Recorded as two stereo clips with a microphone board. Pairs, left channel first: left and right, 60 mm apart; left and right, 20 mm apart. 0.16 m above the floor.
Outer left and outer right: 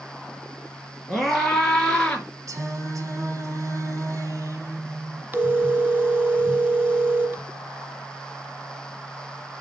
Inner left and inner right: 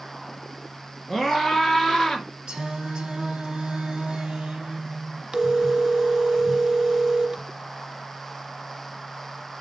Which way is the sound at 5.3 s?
35° right (ahead or behind).